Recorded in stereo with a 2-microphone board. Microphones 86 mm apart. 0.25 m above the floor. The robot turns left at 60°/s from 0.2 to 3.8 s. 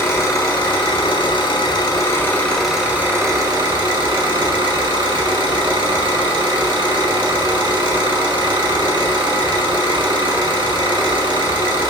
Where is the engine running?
150° left, 1.1 m; by 11.9 s 65° right, 1.1 m.